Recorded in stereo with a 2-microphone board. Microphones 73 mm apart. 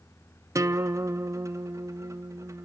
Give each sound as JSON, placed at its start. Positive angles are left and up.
{"t": 0.6, "sound": "a guitar", "side_deg": -45, "distance_m": 0.6}